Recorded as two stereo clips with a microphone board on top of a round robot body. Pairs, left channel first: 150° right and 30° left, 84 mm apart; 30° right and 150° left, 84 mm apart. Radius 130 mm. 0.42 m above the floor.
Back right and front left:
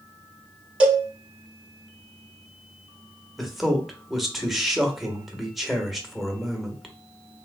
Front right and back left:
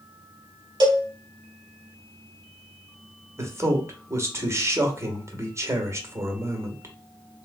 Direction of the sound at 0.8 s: 110° left.